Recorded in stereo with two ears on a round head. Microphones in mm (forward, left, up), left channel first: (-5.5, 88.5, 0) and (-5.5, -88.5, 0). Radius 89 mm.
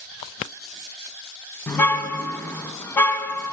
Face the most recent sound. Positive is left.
turn(degrees=10)  # may be behind; listen again after turning